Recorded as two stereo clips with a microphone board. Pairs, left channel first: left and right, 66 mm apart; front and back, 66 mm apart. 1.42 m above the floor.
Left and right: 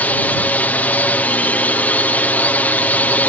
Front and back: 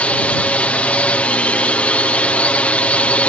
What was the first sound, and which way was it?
A drone, 55° left.